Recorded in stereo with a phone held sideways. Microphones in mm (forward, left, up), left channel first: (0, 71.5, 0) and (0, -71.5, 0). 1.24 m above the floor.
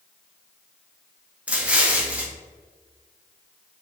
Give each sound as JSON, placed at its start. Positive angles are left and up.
{"t": 1.5, "sound": "an explosion", "side_deg": -10, "distance_m": 1.2}